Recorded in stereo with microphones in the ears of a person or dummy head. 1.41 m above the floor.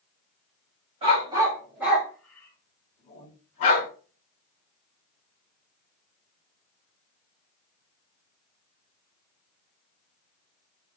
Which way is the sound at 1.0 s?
30° right (ahead or behind).